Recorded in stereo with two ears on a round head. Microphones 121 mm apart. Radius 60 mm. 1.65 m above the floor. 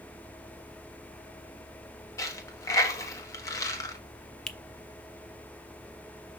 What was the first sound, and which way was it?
A dropped coin, 25° left (ahead or behind).